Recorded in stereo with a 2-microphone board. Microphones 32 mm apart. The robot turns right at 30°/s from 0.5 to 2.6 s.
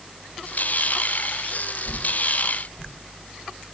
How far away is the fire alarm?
No fire alarm in this recording.